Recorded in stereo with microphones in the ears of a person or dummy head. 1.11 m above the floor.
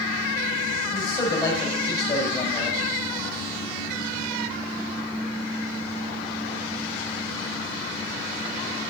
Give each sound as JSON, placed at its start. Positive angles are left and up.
{"t": 0.9, "sound": "a man speaking", "side_deg": 30, "distance_m": 5.0}